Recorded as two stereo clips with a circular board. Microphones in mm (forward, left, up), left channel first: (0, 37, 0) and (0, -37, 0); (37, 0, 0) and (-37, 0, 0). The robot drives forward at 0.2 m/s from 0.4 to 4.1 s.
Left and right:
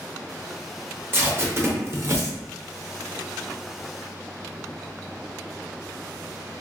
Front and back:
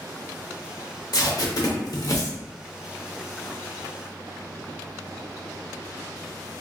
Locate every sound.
1.1 s tape being pulled: 30° right, 0.8 m; by 2.4 s 45° right, 0.6 m